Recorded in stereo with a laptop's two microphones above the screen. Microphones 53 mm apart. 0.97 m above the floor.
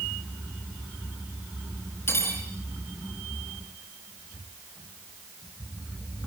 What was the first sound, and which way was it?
Cutlery clinking, 45° left (ahead or behind).